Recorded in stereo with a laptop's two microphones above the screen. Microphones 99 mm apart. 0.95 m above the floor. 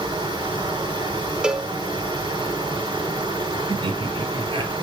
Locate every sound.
0.0 s running water: 45° right (ahead or behind), 6 m
1.4 s a cowbell: 10° right (ahead or behind), 0.8 m
3.7 s laughter: 60° right (ahead or behind), 2 m